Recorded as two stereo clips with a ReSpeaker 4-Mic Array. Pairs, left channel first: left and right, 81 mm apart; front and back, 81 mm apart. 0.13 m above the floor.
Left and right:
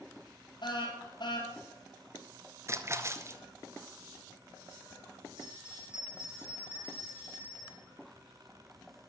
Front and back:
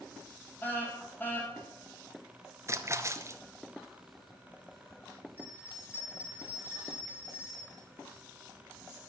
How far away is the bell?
About 3 m.